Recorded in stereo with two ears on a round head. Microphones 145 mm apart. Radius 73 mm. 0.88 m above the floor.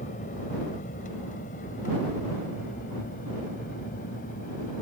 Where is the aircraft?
50° left (ahead or behind); by 4.8 s 55° left (ahead or behind).